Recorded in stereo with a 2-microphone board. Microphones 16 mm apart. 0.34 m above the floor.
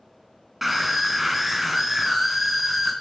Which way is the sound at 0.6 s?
15° right (ahead or behind).